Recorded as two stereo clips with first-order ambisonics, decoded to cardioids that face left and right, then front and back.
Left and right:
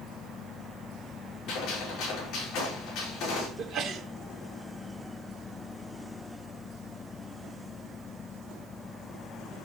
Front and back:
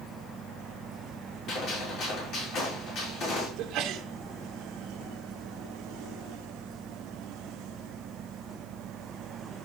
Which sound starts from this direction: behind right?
A sneeze, at 3.6 s.